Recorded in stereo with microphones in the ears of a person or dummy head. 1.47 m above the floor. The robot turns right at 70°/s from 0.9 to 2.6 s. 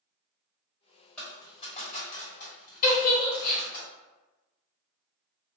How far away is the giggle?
About 1.0 m.